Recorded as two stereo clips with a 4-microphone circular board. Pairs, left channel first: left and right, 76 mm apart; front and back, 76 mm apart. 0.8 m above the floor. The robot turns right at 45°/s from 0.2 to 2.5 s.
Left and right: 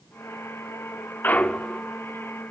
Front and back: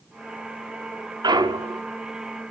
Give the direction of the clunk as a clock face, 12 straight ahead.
7 o'clock.